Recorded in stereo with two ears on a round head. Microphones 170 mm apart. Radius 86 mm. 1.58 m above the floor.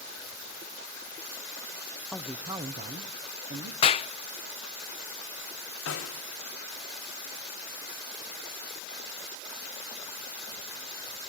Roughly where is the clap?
Left.